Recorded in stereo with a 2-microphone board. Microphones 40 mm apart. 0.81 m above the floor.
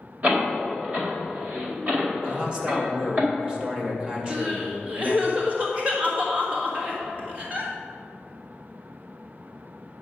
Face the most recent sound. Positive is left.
turn(degrees=-35)  # may be behind; listen again after turning